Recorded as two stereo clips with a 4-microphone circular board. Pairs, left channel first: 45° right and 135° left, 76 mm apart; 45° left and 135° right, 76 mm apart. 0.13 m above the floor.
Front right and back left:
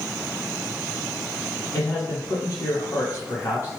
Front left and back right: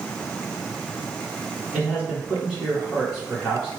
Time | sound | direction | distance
1.7 | a man speaking | 65° right | 1.5 m